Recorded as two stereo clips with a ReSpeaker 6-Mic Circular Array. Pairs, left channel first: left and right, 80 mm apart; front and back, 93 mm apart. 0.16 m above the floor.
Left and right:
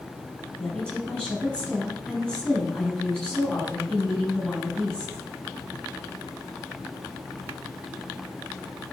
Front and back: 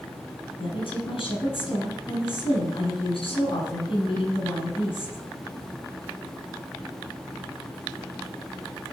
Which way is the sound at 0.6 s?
10° left.